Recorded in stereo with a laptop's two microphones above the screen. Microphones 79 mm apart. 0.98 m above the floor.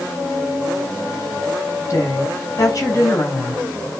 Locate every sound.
1.9 s a woman speaking: 45° left (ahead or behind), 4.5 m